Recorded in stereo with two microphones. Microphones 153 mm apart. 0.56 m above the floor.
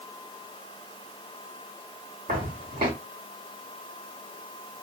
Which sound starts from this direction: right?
Footsteps, at 2.3 s.